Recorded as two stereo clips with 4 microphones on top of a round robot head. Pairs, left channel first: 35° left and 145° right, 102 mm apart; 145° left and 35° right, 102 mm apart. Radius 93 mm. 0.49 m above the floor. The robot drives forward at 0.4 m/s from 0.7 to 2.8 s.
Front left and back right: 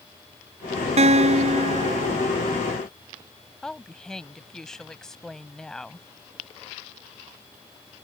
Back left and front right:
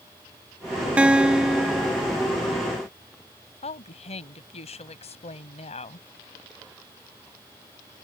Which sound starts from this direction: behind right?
A guitar, at 1.0 s.